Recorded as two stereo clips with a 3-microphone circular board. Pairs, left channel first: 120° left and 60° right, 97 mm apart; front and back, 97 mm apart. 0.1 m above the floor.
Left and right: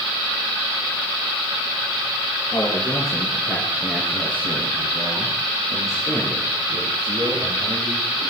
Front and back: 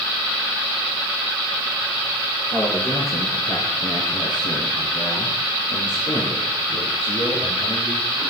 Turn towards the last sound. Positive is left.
turn(degrees=-15)